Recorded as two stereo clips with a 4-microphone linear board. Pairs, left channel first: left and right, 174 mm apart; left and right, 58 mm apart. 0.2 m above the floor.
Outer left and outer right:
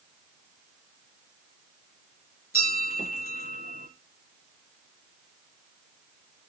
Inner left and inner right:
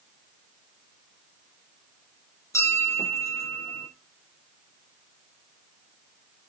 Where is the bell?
60° left (ahead or behind), 3 m.